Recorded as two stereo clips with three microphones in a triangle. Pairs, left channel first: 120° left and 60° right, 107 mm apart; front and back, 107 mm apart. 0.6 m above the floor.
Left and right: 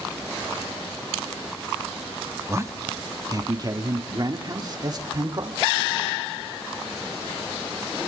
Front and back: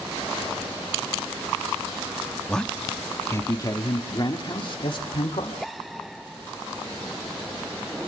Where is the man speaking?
75° right, 1.2 m; by 5.6 s 20° right, 2.5 m.